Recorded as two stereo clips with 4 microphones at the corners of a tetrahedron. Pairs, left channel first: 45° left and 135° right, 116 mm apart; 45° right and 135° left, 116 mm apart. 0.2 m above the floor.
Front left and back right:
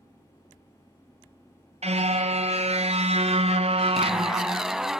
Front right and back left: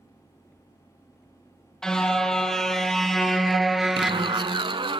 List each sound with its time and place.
1.8 s a car horn: 130° right, 2.5 m; by 4.6 s 150° right, 0.7 m
4.0 s a zipper: 140° left, 0.7 m